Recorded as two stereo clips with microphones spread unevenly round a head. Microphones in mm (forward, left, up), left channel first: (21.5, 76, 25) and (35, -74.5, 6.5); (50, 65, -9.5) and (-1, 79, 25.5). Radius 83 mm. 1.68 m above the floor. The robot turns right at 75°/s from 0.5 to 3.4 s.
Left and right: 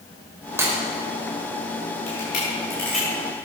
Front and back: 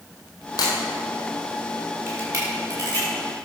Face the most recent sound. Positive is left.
turn(degrees=-145)